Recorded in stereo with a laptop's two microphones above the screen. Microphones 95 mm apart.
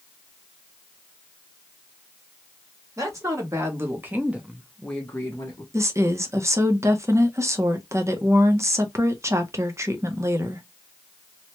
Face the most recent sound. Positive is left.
turn(degrees=-30)  # may be behind; listen again after turning